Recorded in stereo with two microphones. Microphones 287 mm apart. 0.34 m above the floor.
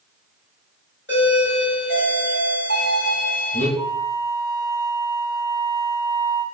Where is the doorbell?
40° left (ahead or behind), 2.5 m.